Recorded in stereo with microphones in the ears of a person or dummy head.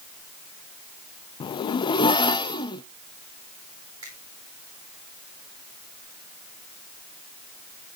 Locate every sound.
1.4 s a zipper: 25° left (ahead or behind), 0.6 m
4.0 s a finger snap: 20° right (ahead or behind), 8.5 m